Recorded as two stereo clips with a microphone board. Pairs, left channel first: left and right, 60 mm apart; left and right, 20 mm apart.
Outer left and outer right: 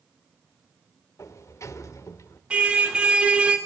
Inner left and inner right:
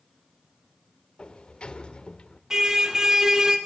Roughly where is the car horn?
Centre.